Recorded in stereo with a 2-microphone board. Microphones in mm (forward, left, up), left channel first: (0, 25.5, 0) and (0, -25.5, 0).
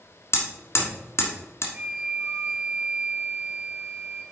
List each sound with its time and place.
0.3 s hammering: 60° left (ahead or behind), 1.5 m
1.7 s a flute: 20° right (ahead or behind), 2.5 m